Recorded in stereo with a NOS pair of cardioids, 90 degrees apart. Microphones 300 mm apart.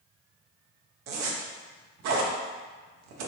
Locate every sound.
1.1 s a zipper: 65° right, 0.6 m